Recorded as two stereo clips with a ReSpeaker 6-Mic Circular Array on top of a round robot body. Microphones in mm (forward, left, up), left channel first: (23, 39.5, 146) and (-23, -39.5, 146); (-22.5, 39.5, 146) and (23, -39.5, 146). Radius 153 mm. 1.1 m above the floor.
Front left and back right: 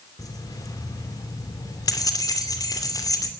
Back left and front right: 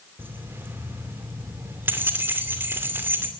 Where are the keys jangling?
10° left, 2.5 m.